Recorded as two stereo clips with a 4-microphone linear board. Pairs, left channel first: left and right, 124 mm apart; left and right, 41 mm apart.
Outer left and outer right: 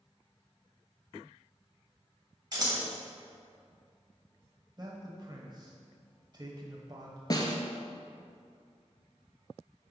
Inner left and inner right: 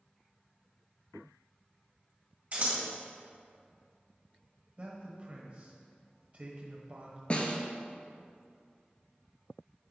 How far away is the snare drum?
About 0.8 m.